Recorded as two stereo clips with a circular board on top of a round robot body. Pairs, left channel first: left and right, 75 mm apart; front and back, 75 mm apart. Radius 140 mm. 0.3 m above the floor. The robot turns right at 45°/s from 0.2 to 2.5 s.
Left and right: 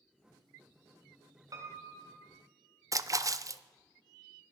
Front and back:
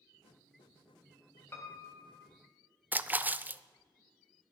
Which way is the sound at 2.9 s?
120° right.